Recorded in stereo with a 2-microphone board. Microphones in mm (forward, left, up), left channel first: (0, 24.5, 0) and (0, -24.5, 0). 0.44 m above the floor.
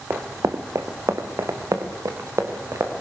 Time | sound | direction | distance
0.1 | running footsteps | 60° right (ahead or behind) | 1.7 m